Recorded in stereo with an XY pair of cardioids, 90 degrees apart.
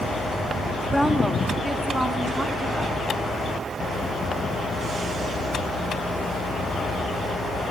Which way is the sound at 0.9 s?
Straight ahead.